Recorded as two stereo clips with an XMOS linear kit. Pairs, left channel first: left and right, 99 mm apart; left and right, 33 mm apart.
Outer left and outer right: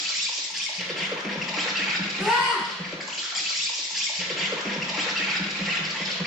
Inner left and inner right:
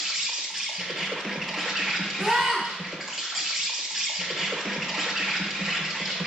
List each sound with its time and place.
0.0 s an insect: centre (ahead or behind), 0.8 m
2.2 s a scream: 5° right (ahead or behind), 1.2 m